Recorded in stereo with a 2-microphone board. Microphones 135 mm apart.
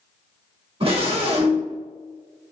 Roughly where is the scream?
Right.